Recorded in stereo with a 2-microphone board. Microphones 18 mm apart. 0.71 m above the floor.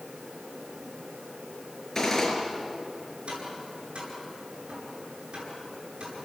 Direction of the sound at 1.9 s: 25° left (ahead or behind).